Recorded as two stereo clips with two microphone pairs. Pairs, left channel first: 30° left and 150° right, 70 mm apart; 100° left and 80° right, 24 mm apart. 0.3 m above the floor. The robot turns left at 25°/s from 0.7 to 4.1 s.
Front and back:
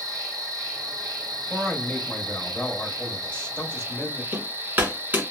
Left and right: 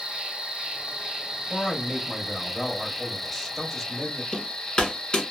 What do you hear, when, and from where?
0.0 s an insect: 115° right, 0.9 m; by 5.3 s 160° left, 0.9 m
1.5 s a man speaking: 95° left, 1.0 m; by 4.2 s 30° left, 1.0 m
4.3 s hammering: 150° left, 1.5 m